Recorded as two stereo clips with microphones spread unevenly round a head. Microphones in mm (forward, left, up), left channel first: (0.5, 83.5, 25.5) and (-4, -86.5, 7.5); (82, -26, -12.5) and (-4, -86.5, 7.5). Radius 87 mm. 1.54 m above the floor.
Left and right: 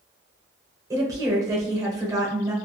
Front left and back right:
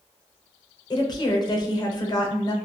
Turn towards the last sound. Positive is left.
turn(degrees=-20)